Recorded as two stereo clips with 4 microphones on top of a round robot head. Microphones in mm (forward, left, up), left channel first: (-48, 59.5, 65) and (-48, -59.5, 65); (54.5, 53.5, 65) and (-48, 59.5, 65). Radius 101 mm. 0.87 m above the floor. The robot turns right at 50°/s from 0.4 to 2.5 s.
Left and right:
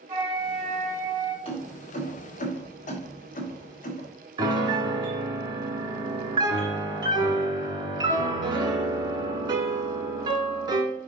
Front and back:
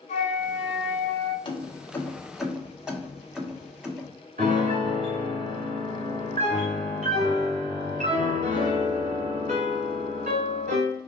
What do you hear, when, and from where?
0.1 s a flute: 15° right, 2 m; by 1.4 s 35° left, 2 m
1.4 s keys jangling: 40° left, 1.6 m; by 4.1 s 95° left, 1.6 m
4.4 s a piano: 145° right, 1.6 m